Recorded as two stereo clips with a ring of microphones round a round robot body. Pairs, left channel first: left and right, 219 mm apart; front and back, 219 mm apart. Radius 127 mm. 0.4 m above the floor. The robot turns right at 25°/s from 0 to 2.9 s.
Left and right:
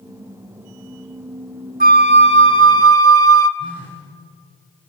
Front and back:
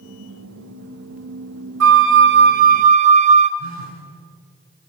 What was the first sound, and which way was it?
A flute, 145° right.